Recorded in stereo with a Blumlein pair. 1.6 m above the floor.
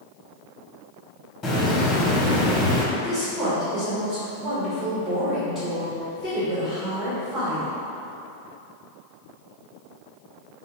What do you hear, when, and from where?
1.4 s a hiss: 20° left, 1.1 m
2.9 s a woman speaking: 25° right, 1.7 m